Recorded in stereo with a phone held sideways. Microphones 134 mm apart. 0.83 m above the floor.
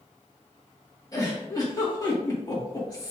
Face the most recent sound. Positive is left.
turn(degrees=30)  # may be behind; listen again after turning